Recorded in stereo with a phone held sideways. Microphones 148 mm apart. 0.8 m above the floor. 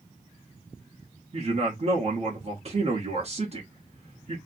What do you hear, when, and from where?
1.3 s a man speaking: 45° right (ahead or behind), 1.0 m